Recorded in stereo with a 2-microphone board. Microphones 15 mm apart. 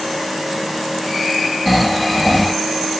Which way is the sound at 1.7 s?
Centre (ahead or behind).